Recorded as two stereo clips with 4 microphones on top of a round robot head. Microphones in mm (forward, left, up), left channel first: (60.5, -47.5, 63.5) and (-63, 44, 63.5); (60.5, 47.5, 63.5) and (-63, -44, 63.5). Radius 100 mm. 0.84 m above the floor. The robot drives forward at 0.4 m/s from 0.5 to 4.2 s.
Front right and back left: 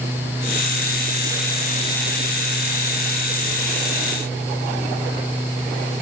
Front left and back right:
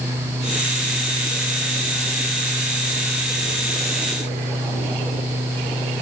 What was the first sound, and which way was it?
Only background noise.